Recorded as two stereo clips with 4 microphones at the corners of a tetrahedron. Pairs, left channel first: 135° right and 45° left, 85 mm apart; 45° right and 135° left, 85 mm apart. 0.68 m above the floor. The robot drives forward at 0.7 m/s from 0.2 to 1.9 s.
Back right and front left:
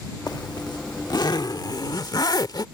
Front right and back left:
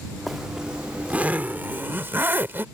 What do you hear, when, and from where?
0.3 s a zipper: 135° right; by 2.6 s 160° right